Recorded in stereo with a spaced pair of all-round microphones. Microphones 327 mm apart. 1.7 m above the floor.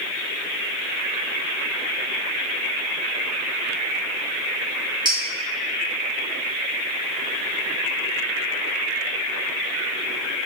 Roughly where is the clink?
Centre.